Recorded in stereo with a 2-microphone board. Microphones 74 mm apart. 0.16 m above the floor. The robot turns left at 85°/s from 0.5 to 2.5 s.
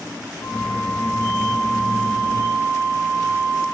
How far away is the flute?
About 4.5 m.